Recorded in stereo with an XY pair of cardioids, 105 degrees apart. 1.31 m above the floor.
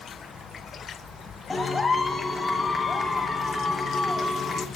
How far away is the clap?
About 3 m.